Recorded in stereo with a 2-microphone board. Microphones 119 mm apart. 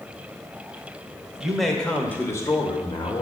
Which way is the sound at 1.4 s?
5° right (ahead or behind).